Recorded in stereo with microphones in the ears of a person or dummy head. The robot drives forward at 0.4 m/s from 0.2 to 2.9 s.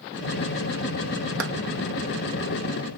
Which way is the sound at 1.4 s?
85° right.